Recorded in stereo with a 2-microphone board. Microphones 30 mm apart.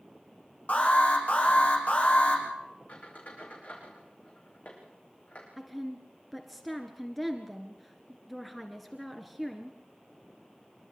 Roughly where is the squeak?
Left.